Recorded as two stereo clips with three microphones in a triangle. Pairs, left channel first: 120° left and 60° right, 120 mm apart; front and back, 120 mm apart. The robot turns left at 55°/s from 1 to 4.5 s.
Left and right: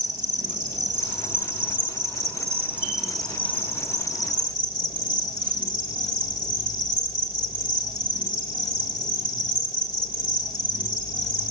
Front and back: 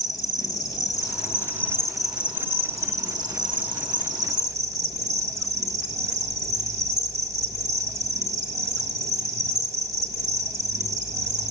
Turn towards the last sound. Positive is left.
turn(degrees=135)